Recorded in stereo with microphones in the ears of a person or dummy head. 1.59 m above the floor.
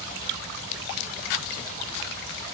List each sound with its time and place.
Only background noise.